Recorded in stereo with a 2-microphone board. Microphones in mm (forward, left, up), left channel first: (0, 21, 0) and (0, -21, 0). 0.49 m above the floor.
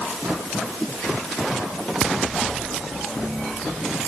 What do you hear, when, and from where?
Only background noise.